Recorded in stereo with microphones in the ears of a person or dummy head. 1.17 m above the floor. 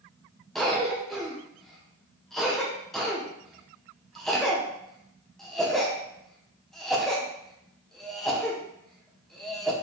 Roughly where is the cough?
Centre.